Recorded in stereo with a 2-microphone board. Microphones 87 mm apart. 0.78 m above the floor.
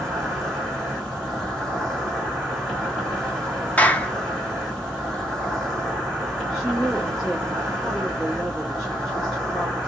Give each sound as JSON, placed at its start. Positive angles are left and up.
{"t": 0.0, "sound": "an insect", "side_deg": 0, "distance_m": 2.0}
{"t": 3.8, "sound": "a clap", "side_deg": 20, "distance_m": 0.5}
{"t": 6.5, "sound": "a woman speaking", "side_deg": -10, "distance_m": 1.3}